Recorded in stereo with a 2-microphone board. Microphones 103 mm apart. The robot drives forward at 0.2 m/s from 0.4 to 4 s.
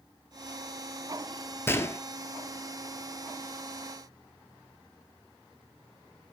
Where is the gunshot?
25° left (ahead or behind), 0.9 m.